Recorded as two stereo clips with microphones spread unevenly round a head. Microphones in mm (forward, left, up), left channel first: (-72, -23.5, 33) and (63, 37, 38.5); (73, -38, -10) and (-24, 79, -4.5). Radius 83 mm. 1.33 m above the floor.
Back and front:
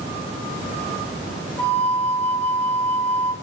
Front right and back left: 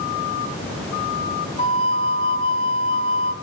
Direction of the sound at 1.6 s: 80° right.